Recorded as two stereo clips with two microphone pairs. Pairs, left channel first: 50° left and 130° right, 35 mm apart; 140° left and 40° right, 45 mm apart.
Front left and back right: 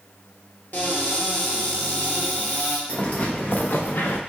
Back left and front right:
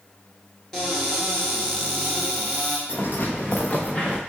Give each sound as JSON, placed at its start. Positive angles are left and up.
{"t": 0.7, "sound": "a cupboard door", "azimuth_deg": 60, "distance_m": 1.4}
{"t": 2.9, "sound": "footsteps", "azimuth_deg": 95, "distance_m": 1.5}